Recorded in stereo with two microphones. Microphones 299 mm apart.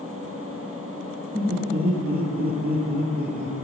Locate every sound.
1.3 s laughter: 30° right (ahead or behind), 3 m